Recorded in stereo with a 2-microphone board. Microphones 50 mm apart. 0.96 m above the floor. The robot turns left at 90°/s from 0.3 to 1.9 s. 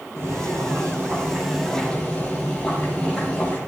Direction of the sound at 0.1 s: 60° right.